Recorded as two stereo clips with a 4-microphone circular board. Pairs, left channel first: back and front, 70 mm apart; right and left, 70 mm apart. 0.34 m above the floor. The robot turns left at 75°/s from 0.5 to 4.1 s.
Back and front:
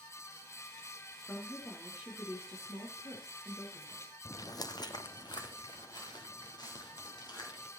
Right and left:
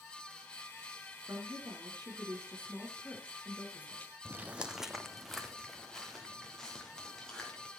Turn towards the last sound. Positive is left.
turn(degrees=-170)